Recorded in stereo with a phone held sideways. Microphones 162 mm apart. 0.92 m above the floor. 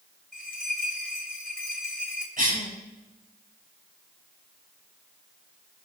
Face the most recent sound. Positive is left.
turn(degrees=-60)  # may be behind; listen again after turning